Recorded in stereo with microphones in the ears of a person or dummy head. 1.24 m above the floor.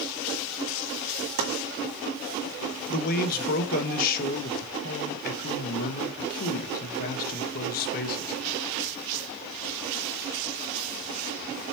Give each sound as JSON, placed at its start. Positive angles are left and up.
{"t": 1.4, "sound": "chopping", "side_deg": -55, "distance_m": 2.5}
{"t": 2.9, "sound": "a man speaking", "side_deg": 50, "distance_m": 1.3}